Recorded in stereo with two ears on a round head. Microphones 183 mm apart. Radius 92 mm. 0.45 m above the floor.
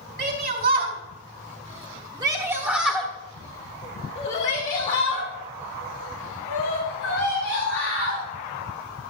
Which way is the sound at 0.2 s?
50° right (ahead or behind).